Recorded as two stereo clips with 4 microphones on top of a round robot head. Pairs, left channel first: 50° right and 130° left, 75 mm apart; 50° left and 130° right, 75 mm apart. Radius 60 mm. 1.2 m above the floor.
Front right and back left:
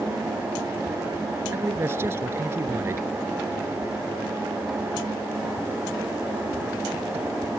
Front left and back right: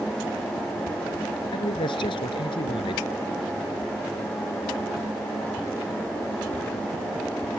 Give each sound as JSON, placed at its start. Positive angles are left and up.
{"t": 1.5, "sound": "a man speaking", "azimuth_deg": 70}